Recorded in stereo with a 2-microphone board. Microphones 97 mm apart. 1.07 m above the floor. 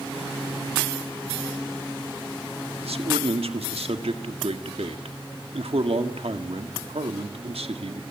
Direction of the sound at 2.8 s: 85° right.